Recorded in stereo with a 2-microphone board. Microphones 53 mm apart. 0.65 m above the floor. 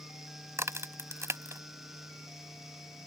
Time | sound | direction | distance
0.6 | a crack | 65° right (ahead or behind) | ?